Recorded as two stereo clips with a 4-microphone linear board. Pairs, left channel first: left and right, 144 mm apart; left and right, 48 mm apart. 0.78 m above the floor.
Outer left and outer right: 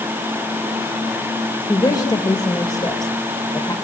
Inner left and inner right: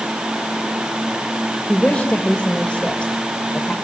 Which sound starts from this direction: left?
A woman speaking, at 1.7 s.